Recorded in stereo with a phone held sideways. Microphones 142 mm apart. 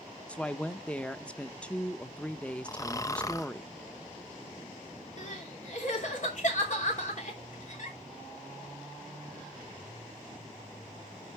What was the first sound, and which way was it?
A woman speaking, 10° left (ahead or behind).